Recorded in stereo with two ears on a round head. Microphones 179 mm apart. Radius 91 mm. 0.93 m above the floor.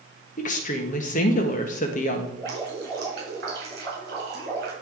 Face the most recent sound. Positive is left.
turn(degrees=-55)  # may be behind; listen again after turning